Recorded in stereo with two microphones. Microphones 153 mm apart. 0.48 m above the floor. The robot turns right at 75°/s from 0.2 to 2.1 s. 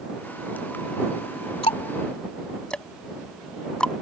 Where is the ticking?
40° left (ahead or behind); by 3.9 s 5° left (ahead or behind).